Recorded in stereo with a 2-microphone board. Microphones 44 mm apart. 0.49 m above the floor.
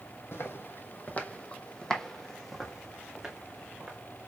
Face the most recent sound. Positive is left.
turn(degrees=-15)  # may be behind; listen again after turning